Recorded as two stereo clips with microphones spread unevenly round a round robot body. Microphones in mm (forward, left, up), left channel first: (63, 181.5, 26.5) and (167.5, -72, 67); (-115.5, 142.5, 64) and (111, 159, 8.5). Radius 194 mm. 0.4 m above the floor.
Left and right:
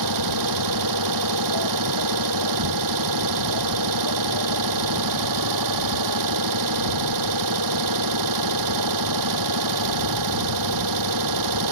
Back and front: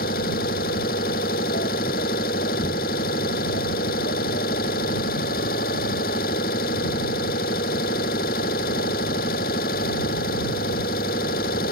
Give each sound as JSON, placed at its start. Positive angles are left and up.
{"t": 0.0, "sound": "an engine running", "azimuth_deg": -110}